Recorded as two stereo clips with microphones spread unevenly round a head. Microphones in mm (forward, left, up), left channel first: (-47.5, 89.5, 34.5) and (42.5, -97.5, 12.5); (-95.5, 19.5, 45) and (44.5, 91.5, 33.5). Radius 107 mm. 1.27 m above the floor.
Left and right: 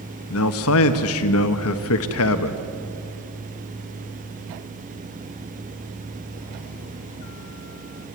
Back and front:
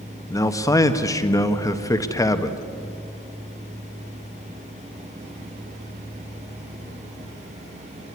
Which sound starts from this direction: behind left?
A man speaking, at 0.3 s.